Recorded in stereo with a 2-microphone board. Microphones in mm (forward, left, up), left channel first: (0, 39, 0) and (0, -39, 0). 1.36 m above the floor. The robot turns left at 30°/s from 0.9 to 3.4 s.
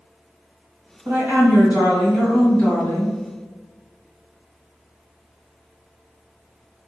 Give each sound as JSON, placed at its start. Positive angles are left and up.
{"t": 1.1, "sound": "a woman speaking", "azimuth_deg": -145, "distance_m": 1.6}